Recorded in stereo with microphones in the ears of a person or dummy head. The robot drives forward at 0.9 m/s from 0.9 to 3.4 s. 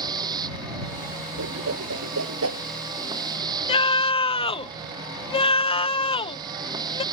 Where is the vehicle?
25° right (ahead or behind).